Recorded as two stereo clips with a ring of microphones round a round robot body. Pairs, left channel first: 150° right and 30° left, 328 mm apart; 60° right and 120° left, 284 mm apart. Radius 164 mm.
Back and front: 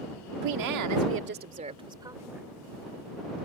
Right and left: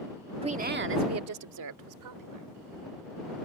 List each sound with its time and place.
0.4 s a woman speaking: 50° left; by 2.5 s 115° left